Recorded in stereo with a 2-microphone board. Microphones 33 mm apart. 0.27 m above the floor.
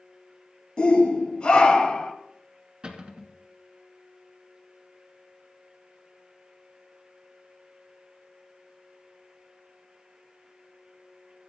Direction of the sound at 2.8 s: 30° right (ahead or behind).